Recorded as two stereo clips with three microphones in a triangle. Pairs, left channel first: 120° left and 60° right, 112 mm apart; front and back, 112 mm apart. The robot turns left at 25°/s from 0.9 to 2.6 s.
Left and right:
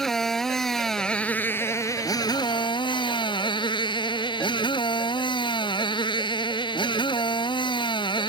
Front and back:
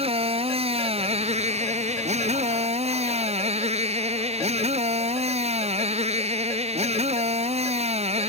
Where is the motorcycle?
155° right; by 8.3 s 165° left.